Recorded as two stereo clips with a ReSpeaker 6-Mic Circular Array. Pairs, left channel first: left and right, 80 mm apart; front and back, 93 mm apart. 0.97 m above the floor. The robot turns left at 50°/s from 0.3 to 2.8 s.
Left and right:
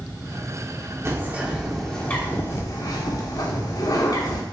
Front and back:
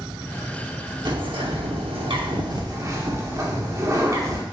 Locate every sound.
1.1 s a bird: 145° right, 1.3 m; by 4.4 s 125° left, 1.3 m